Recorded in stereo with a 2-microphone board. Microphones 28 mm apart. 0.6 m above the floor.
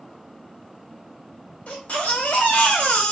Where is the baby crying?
60° left (ahead or behind), 1.5 m.